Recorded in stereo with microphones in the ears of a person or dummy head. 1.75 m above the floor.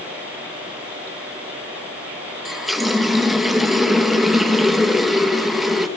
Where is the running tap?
5° right (ahead or behind), 1.1 m.